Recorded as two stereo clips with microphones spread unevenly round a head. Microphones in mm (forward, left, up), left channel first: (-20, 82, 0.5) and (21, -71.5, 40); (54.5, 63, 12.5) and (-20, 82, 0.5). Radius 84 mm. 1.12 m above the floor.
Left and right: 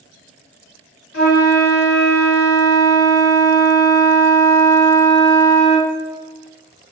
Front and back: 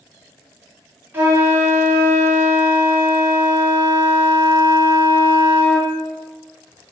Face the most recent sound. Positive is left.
turn(degrees=105)